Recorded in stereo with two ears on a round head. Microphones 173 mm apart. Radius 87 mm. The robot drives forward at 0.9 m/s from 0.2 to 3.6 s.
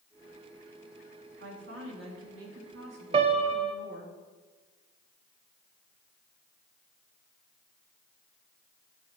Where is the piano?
30° right (ahead or behind), 0.6 m; by 3.8 s 25° right (ahead or behind), 0.6 m.